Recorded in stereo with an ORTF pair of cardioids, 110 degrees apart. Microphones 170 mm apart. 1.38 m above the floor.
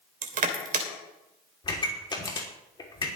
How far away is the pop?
About 3 m.